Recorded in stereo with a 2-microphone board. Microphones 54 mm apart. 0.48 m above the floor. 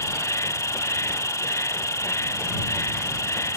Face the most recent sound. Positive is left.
turn(degrees=80)